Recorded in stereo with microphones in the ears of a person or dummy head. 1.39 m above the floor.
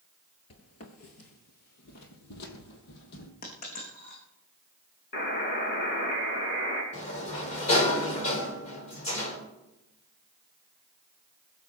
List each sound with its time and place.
0.5 s footsteps: 40° left (ahead or behind), 1.7 m; by 3.3 s 65° left (ahead or behind), 3.5 m
3.4 s a dropped coin: 50° left (ahead or behind), 5 m
5.1 s a buzzer: 55° left (ahead or behind), 3.5 m
6.9 s a sliding door: 40° left (ahead or behind), 4 m